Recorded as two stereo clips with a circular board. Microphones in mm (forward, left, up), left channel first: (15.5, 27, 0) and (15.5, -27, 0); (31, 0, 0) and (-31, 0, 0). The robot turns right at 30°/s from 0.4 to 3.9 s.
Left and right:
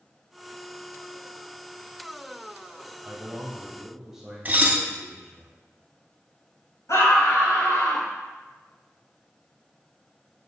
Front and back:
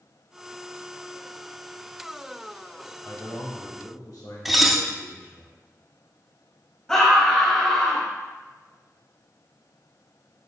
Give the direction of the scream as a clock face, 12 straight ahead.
9 o'clock.